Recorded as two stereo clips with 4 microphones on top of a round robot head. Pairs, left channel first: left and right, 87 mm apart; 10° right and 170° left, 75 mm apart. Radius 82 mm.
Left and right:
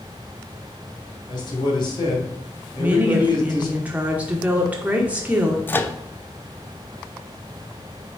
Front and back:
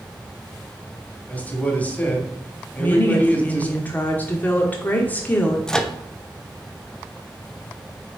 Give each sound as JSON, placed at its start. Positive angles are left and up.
{"t": 1.3, "sound": "a man speaking", "azimuth_deg": 60, "distance_m": 2.5}
{"t": 2.8, "sound": "a woman speaking", "azimuth_deg": -40, "distance_m": 1.1}
{"t": 5.7, "sound": "a microwave", "azimuth_deg": 60, "distance_m": 0.9}